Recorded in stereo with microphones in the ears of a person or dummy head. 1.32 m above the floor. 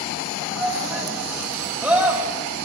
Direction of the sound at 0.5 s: 5° right (ahead or behind).